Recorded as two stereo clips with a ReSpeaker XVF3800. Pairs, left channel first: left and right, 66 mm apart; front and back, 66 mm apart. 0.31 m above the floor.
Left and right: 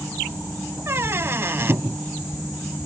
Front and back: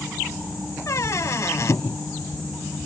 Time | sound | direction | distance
0.9 | a squeak | 40° right | ?